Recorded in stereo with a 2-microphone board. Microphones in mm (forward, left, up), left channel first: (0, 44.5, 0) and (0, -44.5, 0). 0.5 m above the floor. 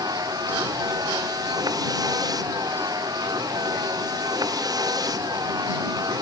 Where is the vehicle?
45° right (ahead or behind).